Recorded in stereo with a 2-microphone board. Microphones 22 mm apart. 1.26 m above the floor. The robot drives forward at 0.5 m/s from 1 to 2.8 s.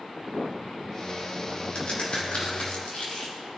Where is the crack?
55° left (ahead or behind), 3.5 m; by 3.3 s 65° left (ahead or behind), 3.5 m.